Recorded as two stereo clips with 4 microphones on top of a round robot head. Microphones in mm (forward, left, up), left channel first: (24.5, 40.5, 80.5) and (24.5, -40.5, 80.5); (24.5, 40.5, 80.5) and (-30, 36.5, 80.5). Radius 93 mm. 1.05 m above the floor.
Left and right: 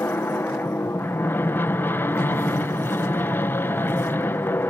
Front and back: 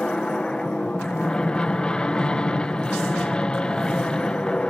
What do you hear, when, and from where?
0.0 s an aircraft: 60° left